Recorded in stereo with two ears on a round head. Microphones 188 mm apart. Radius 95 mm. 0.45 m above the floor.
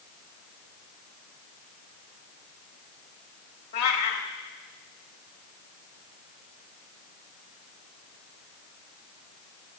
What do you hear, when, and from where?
3.7 s a cat meowing: 45° left (ahead or behind), 1.3 m